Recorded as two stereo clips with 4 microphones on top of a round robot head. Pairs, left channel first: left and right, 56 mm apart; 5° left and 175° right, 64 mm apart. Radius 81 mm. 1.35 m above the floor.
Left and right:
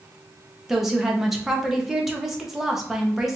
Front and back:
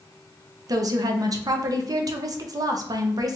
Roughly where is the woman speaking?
Behind.